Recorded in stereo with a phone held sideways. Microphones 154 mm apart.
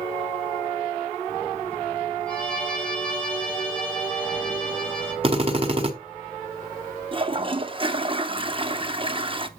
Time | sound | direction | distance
2.3 | a violin | 5° left (ahead or behind) | 3.5 m
5.2 | a drill | 35° right (ahead or behind) | 1.5 m
7.1 | a toilet flushing | 35° right (ahead or behind) | 0.7 m